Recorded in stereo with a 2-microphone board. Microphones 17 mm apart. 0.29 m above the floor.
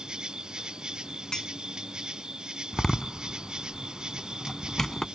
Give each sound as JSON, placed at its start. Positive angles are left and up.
{"t": 0.0, "sound": "an insect", "side_deg": -60}
{"t": 1.3, "sound": "a clink", "side_deg": 45}
{"t": 2.7, "sound": "a door slam", "side_deg": 20}